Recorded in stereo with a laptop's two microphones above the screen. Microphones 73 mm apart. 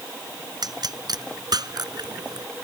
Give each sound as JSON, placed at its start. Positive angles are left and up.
{"t": 0.6, "sound": "a pop", "side_deg": -65}